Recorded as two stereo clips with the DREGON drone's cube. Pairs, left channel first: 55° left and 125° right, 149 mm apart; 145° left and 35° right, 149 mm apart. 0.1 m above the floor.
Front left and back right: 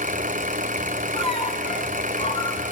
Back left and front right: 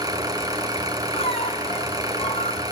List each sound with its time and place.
0.0 s an engine running: 100° right, 2.5 m
1.1 s a squeak: 100° left, 2.5 m